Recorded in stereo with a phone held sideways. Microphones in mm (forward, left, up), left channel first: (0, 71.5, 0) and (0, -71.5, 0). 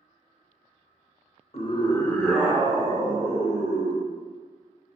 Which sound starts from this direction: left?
A scream, at 1.5 s.